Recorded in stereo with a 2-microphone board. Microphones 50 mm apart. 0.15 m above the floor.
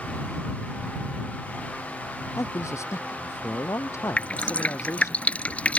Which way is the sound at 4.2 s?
25° left (ahead or behind).